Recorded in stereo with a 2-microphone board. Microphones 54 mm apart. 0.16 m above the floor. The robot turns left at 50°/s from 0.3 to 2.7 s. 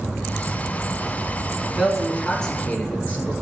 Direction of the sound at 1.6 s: 155° right.